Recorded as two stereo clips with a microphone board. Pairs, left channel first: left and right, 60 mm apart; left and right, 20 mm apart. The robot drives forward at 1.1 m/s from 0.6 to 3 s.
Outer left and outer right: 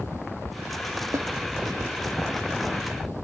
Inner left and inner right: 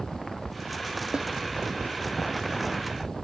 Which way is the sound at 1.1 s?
60° right (ahead or behind).